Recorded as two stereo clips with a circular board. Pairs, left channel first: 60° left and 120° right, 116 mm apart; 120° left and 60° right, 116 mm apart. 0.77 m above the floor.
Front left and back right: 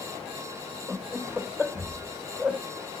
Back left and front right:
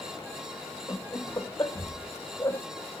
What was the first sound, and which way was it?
Laughter, 165° left.